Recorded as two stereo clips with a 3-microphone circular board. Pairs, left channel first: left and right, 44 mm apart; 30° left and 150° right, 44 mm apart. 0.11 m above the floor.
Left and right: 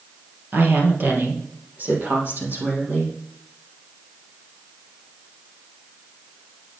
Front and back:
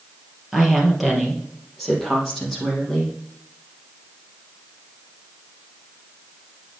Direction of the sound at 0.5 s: 70° right.